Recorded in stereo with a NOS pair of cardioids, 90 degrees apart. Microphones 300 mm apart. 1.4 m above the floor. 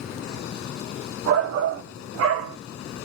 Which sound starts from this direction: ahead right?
A shout, at 1.3 s.